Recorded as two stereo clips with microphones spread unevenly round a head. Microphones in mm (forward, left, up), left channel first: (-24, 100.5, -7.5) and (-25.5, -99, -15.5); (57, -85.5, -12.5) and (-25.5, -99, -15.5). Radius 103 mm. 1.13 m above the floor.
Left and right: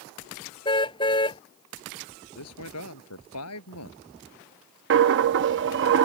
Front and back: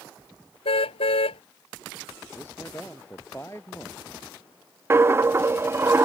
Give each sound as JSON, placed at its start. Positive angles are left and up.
{"t": 0.7, "sound": "a car horn", "azimuth_deg": 20}
{"t": 2.4, "sound": "a man speaking", "azimuth_deg": 90}
{"t": 4.9, "sound": "a dropped coin", "azimuth_deg": -110}